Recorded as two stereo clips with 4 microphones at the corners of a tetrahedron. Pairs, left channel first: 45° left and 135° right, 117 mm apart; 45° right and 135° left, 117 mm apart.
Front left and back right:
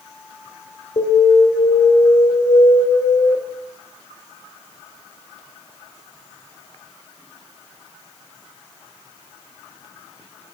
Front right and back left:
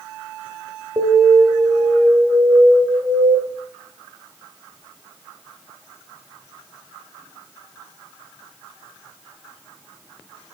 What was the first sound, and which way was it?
An alarm, 80° left.